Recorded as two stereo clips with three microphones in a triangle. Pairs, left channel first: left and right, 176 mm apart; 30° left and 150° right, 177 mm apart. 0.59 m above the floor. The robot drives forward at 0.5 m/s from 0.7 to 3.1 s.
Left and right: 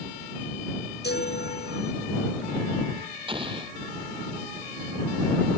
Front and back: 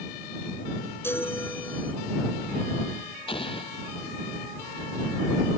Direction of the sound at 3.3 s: 30° right.